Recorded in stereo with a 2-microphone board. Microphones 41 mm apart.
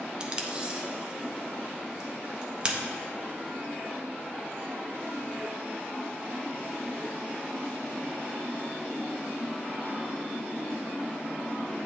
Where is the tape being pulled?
20° right (ahead or behind), 0.6 m.